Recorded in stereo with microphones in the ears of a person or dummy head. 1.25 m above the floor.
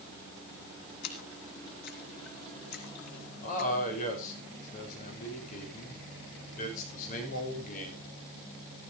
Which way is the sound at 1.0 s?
65° left (ahead or behind).